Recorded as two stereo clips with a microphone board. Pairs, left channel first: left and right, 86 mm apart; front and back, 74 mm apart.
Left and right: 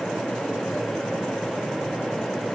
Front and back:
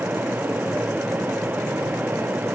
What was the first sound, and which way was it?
Only background noise.